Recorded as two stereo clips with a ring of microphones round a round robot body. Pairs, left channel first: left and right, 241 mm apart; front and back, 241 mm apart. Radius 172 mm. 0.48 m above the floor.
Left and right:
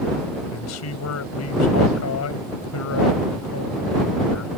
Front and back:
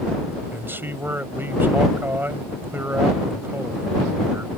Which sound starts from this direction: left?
A man speaking, at 0.5 s.